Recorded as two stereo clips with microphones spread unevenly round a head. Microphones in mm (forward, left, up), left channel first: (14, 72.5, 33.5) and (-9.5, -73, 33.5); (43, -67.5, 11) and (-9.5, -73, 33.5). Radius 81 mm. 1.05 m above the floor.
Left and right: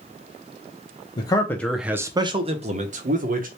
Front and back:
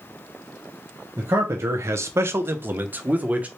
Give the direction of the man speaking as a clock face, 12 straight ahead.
8 o'clock.